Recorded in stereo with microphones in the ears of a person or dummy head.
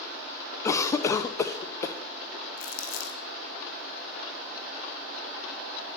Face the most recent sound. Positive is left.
turn(degrees=65)  # may be behind; listen again after turning